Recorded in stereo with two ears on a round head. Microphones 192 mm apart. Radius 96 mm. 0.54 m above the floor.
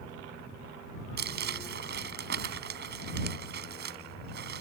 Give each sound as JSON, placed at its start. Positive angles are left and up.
{"t": 1.2, "sound": "crumpling", "side_deg": -55}